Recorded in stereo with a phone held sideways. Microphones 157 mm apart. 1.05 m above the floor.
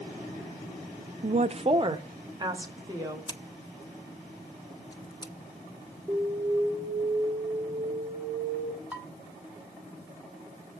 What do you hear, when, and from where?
1.2 s a woman speaking: 55° right (ahead or behind), 0.5 m; by 3.2 s 25° right (ahead or behind), 2.5 m
3.3 s scissors: 30° left (ahead or behind), 1.1 m
6.1 s an alarm: centre (ahead or behind), 4.5 m
8.9 s dishes clattering: 10° right (ahead or behind), 2 m